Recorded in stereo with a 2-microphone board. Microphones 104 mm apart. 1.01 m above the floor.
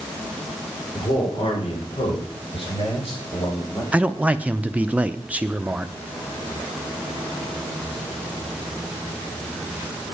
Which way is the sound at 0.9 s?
60° left (ahead or behind).